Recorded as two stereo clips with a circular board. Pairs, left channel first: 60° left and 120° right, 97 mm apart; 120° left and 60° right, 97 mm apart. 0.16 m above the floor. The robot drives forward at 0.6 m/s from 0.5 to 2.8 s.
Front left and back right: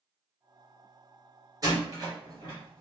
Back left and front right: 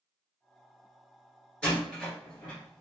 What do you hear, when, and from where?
1.6 s a door slam: 160° right, 2 m; by 2.8 s 165° right, 2.5 m